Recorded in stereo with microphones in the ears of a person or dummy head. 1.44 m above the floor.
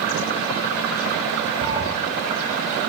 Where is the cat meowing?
25° right (ahead or behind), 4 m.